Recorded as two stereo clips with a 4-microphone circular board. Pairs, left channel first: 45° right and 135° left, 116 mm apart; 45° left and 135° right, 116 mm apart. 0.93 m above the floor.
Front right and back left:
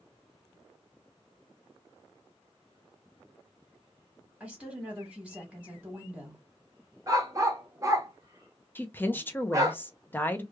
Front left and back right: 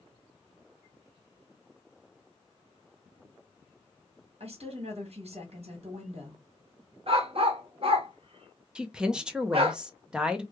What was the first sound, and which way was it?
A woman speaking, 145° right.